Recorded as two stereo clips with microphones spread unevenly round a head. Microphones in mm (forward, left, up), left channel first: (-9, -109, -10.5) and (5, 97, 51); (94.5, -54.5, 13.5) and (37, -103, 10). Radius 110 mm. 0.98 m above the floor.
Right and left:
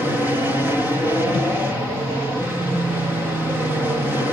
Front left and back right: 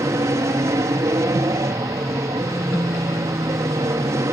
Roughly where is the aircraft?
Behind.